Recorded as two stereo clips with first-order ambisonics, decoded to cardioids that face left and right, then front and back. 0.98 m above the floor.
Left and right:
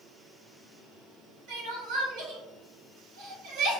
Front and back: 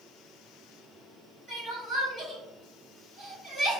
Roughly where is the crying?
Right.